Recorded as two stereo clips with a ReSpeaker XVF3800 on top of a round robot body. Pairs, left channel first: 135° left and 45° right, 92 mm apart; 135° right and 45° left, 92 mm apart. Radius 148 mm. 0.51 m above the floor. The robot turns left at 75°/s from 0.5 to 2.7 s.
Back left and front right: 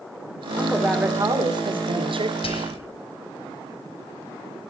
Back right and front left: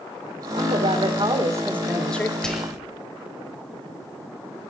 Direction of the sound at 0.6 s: 65° left.